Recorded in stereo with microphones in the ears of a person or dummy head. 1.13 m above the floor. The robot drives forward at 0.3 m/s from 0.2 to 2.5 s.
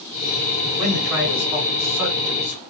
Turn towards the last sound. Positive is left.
turn(degrees=-20)  # may be behind; listen again after turning